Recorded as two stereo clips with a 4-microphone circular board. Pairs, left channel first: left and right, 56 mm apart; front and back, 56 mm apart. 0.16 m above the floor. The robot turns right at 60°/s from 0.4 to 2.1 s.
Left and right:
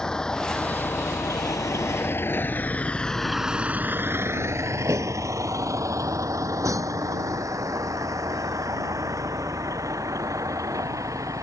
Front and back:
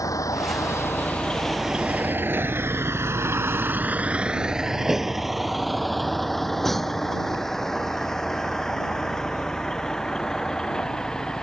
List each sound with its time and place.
0.0 s a vehicle: 10° left; by 11.4 s 80° right